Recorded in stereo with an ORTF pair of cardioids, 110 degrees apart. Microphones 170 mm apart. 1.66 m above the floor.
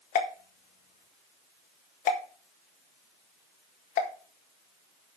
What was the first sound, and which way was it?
A pop, 55° left.